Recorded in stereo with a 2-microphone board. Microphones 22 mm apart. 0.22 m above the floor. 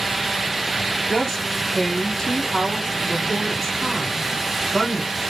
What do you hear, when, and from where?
1.1 s a woman speaking: centre (ahead or behind), 1.2 m